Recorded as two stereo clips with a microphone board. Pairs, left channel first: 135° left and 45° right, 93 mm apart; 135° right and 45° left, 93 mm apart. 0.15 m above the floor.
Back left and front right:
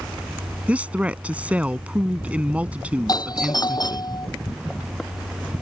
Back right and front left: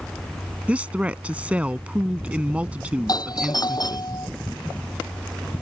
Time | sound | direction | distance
0.7 | a woman speaking | straight ahead | ?
3.1 | a doorbell | straight behind | ?